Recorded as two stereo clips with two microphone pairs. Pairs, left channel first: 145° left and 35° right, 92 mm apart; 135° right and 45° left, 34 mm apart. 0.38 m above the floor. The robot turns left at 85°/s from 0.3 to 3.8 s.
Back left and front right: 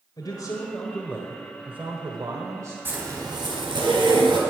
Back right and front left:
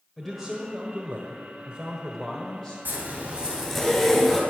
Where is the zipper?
30° left, 3 m; by 4.4 s 50° right, 3 m.